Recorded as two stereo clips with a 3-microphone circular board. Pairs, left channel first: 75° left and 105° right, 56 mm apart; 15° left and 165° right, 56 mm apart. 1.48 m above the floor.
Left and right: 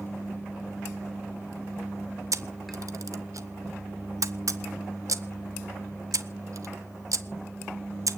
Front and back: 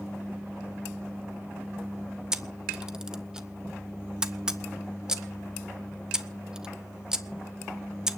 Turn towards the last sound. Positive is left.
turn(degrees=-90)